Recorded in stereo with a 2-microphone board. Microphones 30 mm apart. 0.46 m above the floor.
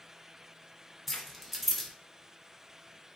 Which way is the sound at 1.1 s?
Centre (ahead or behind).